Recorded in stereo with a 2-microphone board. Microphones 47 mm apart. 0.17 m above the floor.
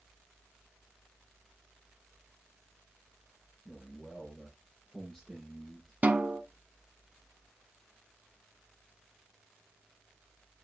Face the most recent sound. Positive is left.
turn(degrees=-35)  # may be behind; listen again after turning